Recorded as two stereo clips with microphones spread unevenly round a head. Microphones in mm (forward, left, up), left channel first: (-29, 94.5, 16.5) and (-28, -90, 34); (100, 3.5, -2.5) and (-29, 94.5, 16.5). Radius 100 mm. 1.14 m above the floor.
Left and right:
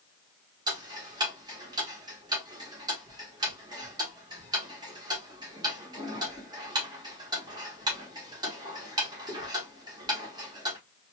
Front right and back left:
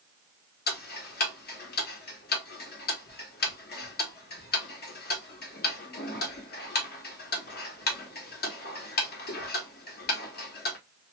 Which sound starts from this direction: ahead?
Ticking, at 0.7 s.